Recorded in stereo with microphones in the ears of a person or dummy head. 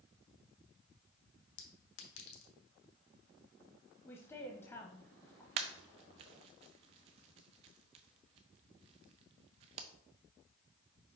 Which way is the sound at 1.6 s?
75° left (ahead or behind).